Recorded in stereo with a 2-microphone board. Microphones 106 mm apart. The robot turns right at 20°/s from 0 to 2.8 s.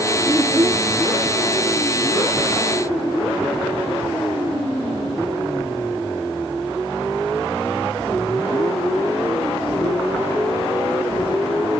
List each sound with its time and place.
0.3 s a child speaking: 30° right (ahead or behind), 2 m; by 0.9 s 40° right (ahead or behind), 2 m